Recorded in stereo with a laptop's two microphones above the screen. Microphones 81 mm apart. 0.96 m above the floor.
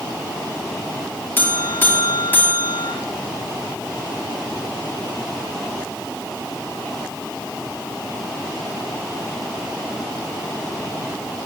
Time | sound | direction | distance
1.4 | a buzzer | 25° left (ahead or behind) | 2.5 m